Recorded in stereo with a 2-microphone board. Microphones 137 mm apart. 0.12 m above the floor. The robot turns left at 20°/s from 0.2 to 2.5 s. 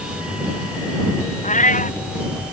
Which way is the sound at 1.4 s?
60° left (ahead or behind).